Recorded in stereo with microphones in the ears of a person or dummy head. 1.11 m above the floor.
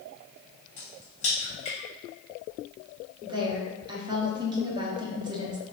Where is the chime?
I don't hear a chime.